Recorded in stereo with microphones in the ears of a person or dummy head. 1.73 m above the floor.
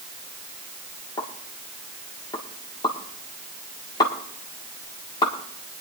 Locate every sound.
1.2 s a pop: 25° left (ahead or behind), 1.5 m